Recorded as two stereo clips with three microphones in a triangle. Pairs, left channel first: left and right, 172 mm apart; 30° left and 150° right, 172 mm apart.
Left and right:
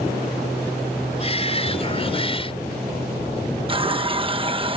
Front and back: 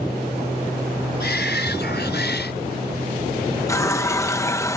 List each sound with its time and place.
1.2 s a shout: 35° left
3.7 s a running tap: 40° right